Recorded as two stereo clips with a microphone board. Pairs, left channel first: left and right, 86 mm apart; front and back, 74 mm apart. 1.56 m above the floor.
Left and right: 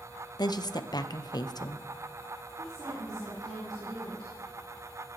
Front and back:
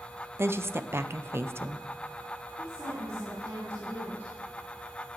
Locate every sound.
0.4 s a woman speaking: 125° left, 0.6 m
2.6 s a woman speaking: 135° right, 5.5 m